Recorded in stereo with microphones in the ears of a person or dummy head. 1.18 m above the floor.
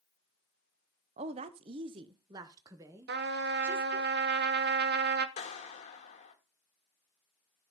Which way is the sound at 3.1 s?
55° right (ahead or behind).